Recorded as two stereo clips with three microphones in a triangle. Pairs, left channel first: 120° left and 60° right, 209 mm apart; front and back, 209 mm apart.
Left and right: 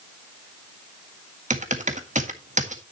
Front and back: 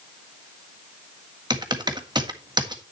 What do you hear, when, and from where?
1.5 s typing on a keyboard: 110° right, 1.6 m